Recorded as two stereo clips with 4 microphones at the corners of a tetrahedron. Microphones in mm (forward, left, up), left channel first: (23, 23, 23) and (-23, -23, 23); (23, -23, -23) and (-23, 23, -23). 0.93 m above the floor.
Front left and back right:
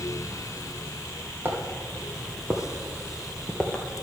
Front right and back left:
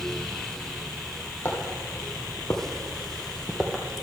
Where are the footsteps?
90° right, 1.7 m; by 3.8 s 60° left, 0.9 m.